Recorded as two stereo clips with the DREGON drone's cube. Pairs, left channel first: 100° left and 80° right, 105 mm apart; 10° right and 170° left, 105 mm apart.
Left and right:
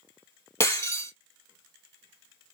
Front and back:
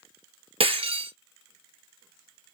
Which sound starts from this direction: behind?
Breaking glass, at 0.6 s.